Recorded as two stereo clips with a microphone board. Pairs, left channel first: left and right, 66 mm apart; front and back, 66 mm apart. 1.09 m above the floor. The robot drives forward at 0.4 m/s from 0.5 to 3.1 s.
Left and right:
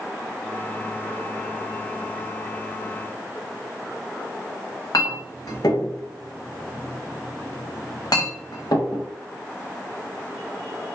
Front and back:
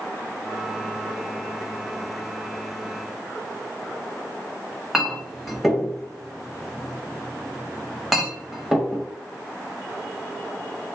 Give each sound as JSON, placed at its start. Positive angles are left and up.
{"t": 4.9, "sound": "a clink", "azimuth_deg": 90, "distance_m": 0.7}